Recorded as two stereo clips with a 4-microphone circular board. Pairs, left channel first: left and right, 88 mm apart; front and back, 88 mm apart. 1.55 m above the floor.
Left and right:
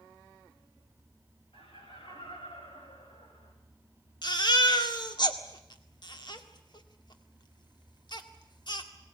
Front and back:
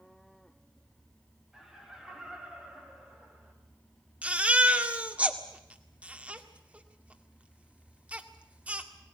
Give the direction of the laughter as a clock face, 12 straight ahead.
9 o'clock.